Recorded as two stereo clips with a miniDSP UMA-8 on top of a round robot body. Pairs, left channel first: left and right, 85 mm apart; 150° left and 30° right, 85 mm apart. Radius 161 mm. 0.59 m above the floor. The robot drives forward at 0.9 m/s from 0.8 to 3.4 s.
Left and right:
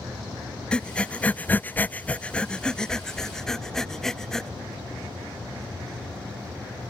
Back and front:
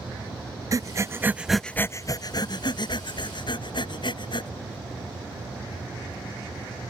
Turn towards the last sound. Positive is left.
turn(degrees=175)